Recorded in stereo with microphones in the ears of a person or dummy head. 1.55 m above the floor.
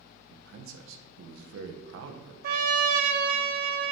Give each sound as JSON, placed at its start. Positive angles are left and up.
{"t": 0.3, "sound": "a man speaking", "side_deg": -70, "distance_m": 0.9}
{"t": 2.4, "sound": "a trumpet", "side_deg": -50, "distance_m": 0.7}